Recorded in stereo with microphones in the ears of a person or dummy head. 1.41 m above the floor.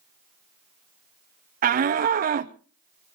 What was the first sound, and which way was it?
A shout, 40° right (ahead or behind).